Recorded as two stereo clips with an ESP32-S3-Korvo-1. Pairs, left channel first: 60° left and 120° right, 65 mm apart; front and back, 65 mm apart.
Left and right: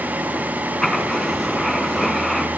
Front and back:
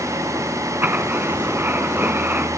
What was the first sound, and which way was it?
Writing, 140° left.